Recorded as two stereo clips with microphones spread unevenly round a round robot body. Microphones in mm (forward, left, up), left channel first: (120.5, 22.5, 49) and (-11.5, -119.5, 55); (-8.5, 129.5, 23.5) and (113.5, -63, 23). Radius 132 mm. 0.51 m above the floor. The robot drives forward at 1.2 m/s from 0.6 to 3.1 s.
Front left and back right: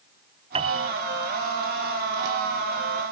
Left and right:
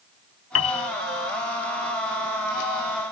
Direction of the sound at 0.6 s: 160° left.